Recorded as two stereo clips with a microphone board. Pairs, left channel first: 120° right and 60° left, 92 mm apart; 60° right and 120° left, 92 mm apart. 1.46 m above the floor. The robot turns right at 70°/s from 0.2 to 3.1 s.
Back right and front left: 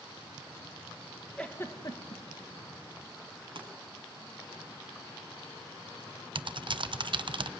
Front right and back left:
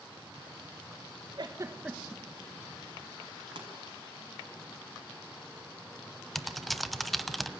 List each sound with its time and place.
1.4 s a giggle: 160° left, 2.0 m; by 2.2 s 140° right, 2.0 m
3.5 s a pop: 85° left, 6.5 m
6.3 s typing on a keyboard: 30° left, 1.0 m